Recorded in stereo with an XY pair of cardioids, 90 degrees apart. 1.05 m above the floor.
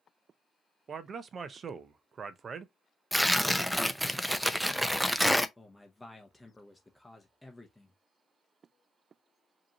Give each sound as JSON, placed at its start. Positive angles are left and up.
{"t": 0.9, "sound": "a man speaking", "azimuth_deg": -55, "distance_m": 0.6}
{"t": 3.1, "sound": "tearing paper", "azimuth_deg": -5, "distance_m": 0.6}
{"t": 5.6, "sound": "a man speaking", "azimuth_deg": 10, "distance_m": 0.8}